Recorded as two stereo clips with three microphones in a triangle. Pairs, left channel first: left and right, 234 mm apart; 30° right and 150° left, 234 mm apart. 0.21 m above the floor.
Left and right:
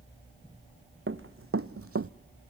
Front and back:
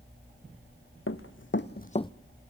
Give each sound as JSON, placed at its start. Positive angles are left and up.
{"t": 1.1, "sound": "running footsteps", "azimuth_deg": -55, "distance_m": 1.2}